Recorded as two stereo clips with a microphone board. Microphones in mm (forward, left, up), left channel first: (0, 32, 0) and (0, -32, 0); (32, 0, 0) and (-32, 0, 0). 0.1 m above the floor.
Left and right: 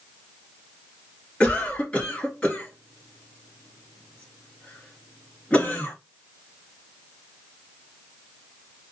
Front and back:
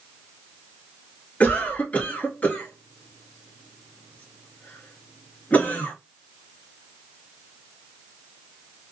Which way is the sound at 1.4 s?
40° left.